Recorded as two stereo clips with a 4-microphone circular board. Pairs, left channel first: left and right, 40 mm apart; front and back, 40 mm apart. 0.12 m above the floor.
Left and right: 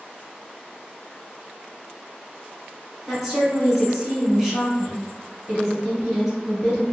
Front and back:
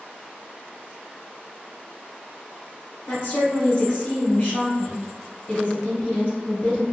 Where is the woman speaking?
10° right, 1.7 m.